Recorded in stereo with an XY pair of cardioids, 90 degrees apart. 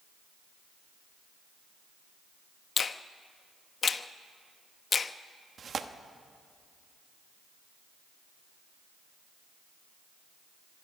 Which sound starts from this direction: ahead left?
A finger snap, at 2.8 s.